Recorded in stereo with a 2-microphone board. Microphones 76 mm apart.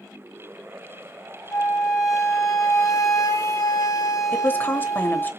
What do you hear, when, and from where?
1.5 s a flute: 45° left (ahead or behind), 1.0 m
4.3 s a woman speaking: 25° left (ahead or behind), 1.0 m